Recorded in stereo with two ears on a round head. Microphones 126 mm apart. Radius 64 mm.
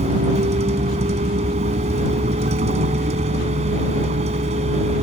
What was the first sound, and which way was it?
A vehicle, 50° right (ahead or behind).